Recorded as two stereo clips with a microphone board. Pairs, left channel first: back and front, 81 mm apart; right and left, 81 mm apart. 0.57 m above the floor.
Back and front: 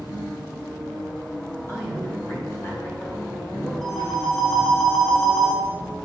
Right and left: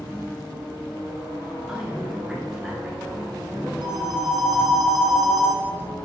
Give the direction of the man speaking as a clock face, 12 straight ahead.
6 o'clock.